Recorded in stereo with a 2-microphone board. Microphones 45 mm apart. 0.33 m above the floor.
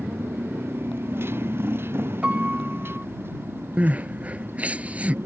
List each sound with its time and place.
0.0 s a motorcycle: 60° right (ahead or behind)
2.2 s a piano: 30° right (ahead or behind)
3.8 s crying: 35° right (ahead or behind)